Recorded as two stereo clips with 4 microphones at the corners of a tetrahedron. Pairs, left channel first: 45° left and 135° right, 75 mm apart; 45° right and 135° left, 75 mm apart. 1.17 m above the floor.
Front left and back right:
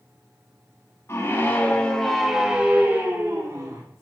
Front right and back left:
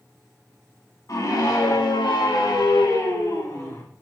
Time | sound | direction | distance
1.1 | a scream | 10° right | 2.5 m